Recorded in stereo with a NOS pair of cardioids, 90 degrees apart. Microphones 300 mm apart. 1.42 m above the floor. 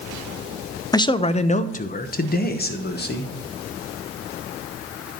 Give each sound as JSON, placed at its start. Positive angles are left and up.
{"t": 0.9, "sound": "a man speaking", "azimuth_deg": 15, "distance_m": 0.5}